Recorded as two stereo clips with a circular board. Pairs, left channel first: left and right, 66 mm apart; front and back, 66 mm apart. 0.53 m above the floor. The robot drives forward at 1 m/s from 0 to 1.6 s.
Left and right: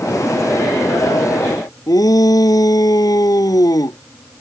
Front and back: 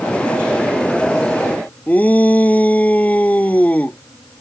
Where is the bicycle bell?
I don't hear a bicycle bell.